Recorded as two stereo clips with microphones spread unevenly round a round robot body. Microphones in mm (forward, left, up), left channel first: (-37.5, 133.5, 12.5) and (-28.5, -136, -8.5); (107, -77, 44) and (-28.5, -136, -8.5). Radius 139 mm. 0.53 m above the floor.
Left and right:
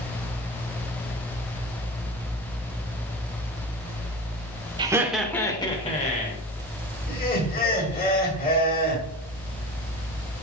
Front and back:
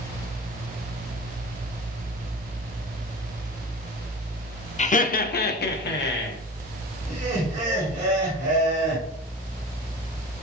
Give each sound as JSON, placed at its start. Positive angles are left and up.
{"t": 4.8, "sound": "laughter", "azimuth_deg": -25, "distance_m": 1.3}
{"t": 7.1, "sound": "laughter", "azimuth_deg": 150, "distance_m": 5.5}